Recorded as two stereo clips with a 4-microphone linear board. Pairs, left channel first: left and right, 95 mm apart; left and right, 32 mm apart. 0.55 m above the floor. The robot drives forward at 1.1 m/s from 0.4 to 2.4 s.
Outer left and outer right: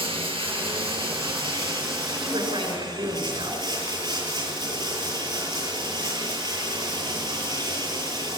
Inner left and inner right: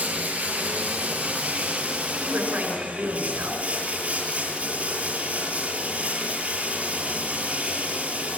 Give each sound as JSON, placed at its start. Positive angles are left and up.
{"t": 0.0, "sound": "running water", "side_deg": -70, "distance_m": 7.0}
{"t": 2.2, "sound": "a woman speaking", "side_deg": -75, "distance_m": 6.5}